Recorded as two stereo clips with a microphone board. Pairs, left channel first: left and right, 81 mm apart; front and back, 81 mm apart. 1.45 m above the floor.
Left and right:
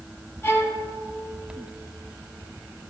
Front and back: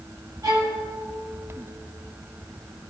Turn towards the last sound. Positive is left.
turn(degrees=150)